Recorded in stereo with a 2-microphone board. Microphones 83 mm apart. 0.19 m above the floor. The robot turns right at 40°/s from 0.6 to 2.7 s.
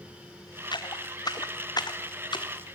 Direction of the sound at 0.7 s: 65° left (ahead or behind).